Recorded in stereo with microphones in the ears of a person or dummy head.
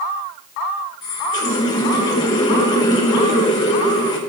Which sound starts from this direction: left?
A running tap, at 1.0 s.